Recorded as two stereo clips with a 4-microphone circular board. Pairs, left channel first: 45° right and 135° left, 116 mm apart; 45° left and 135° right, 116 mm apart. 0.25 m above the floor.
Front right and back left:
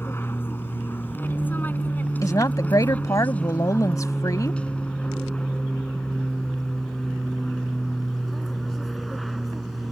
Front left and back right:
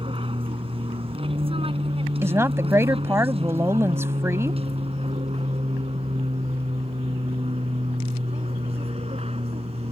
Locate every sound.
0.0 s an aircraft: 110° right; by 9.9 s 135° right
2.2 s a woman speaking: 80° right